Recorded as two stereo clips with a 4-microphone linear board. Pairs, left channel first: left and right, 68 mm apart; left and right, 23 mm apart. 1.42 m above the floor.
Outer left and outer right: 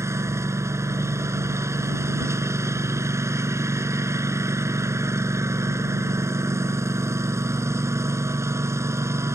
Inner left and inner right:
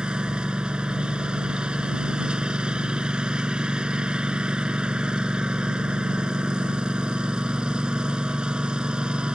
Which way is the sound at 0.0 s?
45° right (ahead or behind).